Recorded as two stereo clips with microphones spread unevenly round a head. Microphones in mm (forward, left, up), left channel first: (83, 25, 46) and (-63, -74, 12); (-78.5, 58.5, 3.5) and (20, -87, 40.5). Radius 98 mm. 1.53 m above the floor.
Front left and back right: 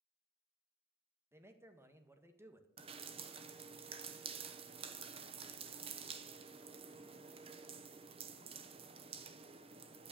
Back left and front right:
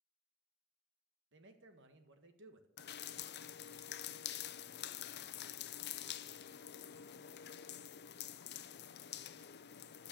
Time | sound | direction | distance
1.3 | a man speaking | 70° right | 1.8 m
2.8 | dripping | 150° left | 0.8 m